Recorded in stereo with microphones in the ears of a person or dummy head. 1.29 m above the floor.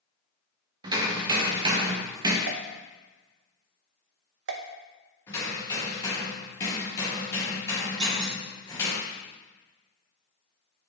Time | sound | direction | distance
0.8 | hammering | 25° right (ahead or behind) | 0.8 m
2.5 | a pop | 75° right (ahead or behind) | 0.7 m
5.3 | hammering | 10° left (ahead or behind) | 1.7 m
8.0 | a clunk | 15° right (ahead or behind) | 1.2 m